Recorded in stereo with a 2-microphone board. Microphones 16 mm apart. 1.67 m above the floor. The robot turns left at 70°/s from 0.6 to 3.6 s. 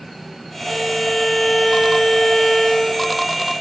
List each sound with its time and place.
0.6 s a violin: 155° left, 1.2 m; by 3.0 s 10° right, 1.2 m